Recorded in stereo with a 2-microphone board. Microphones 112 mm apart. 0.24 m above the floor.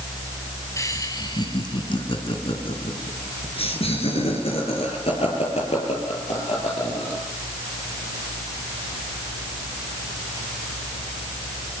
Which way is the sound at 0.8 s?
30° left (ahead or behind).